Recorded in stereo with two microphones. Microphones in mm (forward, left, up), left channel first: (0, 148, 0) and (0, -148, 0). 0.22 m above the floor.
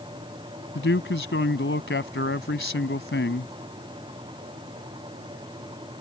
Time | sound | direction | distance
0.8 | a man speaking | 40° left (ahead or behind) | ?